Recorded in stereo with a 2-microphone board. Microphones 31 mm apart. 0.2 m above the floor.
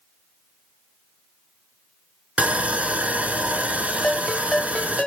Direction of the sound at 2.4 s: 55° right (ahead or behind).